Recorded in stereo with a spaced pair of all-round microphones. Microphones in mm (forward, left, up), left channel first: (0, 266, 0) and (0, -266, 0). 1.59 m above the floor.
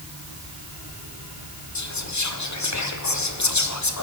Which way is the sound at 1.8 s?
35° left (ahead or behind).